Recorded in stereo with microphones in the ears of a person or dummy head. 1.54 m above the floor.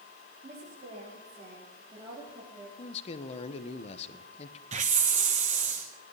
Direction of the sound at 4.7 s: 35° right (ahead or behind).